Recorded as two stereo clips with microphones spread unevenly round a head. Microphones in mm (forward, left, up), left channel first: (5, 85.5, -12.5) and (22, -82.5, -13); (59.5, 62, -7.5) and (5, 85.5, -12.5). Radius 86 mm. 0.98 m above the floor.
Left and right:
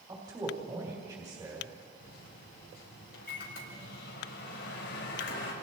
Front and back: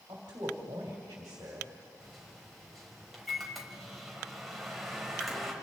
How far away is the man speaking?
About 2.5 m.